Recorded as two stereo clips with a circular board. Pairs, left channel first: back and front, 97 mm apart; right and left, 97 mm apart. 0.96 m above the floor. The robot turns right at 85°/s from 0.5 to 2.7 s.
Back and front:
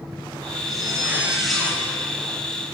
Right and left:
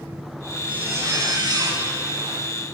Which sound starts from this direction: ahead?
A zipper, at 0.7 s.